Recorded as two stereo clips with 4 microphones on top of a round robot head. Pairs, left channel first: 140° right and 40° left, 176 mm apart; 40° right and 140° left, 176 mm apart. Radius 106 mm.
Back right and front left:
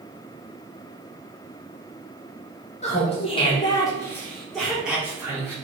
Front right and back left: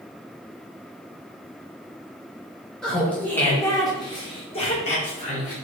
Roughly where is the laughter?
Behind right.